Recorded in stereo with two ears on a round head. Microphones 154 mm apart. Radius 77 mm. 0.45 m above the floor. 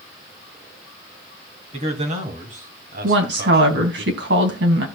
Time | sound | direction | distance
1.7 | a man speaking | 40° right (ahead or behind) | 3 m
3.0 | a woman speaking | 70° right (ahead or behind) | 3 m